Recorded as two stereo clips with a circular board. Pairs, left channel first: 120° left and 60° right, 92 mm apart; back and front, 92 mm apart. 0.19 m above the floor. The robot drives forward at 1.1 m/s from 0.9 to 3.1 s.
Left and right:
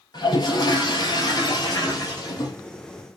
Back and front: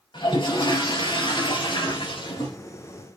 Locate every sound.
0.1 s a toilet flushing: 155° left, 3.5 m; by 2.6 s 165° left, 5 m